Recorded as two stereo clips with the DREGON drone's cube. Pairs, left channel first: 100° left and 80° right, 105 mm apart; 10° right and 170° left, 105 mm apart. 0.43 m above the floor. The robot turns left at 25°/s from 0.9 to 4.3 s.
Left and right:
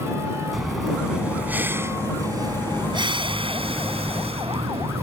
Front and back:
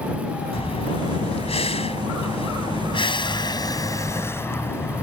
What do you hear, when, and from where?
0.5 s breathing: 10° left; by 5.0 s 75° right